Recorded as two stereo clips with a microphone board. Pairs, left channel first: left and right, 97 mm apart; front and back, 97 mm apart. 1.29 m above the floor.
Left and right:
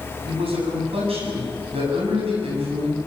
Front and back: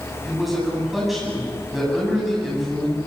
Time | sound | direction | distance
0.2 | a man speaking | 90° right | 9.5 m